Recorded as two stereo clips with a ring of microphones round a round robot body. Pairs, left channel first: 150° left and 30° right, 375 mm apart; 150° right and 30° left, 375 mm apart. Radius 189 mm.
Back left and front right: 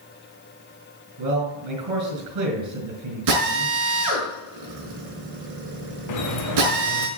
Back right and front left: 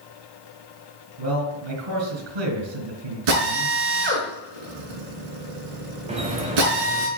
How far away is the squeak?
About 1.8 m.